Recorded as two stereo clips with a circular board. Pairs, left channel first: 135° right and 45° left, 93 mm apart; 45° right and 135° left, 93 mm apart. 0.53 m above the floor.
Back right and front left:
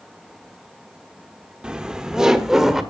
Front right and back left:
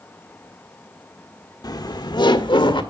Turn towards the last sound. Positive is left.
turn(degrees=-40)